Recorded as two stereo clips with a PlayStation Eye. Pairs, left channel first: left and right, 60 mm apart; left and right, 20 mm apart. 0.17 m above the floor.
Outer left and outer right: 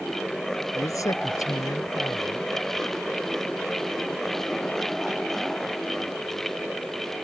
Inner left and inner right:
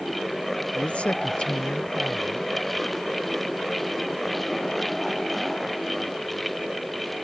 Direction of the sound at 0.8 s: 65° left (ahead or behind).